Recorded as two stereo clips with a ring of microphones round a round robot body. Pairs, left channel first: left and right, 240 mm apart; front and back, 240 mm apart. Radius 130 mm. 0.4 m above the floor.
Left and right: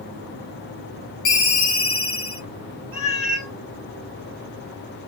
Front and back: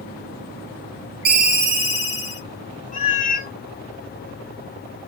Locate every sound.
1.2 s a ringtone: 140° left, 1.2 m
2.9 s a cat meowing: 60° left, 1.6 m